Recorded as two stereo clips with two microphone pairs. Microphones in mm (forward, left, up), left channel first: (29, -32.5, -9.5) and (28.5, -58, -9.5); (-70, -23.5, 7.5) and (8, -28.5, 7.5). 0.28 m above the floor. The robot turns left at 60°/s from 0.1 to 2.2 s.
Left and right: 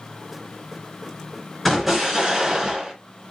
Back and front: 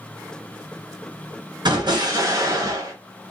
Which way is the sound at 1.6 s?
Straight ahead.